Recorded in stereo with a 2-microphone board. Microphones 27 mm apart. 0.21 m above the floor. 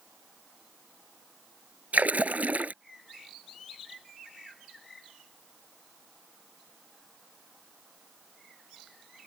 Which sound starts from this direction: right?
A splash, at 1.9 s.